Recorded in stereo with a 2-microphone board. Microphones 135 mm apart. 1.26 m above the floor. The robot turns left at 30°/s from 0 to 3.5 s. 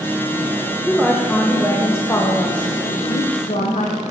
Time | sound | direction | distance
0.9 | a woman speaking | 170° right | 0.7 m